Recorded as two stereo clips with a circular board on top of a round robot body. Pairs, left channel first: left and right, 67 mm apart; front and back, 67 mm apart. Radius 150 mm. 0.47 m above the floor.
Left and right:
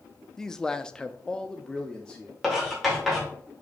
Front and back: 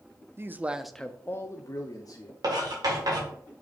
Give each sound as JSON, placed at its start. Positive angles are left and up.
{"t": 0.4, "sound": "a man speaking", "azimuth_deg": 170, "distance_m": 0.8}
{"t": 2.4, "sound": "writing", "azimuth_deg": -175, "distance_m": 3.0}